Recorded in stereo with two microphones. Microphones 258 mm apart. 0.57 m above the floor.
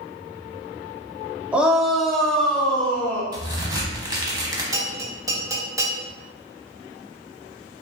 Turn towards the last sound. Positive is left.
turn(degrees=-15)  # may be behind; listen again after turning